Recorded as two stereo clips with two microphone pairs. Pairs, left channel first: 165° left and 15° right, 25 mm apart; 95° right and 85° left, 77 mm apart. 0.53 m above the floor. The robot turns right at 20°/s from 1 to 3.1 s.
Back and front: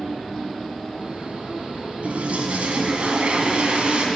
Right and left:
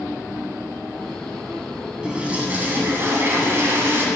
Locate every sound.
2.0 s a toilet flushing: 5° left, 1.5 m; by 4.1 s 30° left, 1.5 m